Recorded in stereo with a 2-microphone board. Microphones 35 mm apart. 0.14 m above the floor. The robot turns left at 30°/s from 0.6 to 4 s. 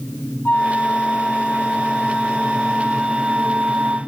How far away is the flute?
About 0.9 m.